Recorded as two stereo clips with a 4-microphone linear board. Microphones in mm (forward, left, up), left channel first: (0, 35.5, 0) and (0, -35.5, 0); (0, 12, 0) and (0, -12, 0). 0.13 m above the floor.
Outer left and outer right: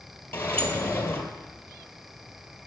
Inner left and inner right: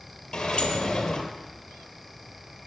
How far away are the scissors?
I don't hear scissors.